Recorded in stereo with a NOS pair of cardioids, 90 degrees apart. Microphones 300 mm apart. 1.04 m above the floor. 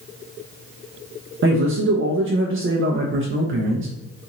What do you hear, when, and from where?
1.4 s a man speaking: 45° right, 0.6 m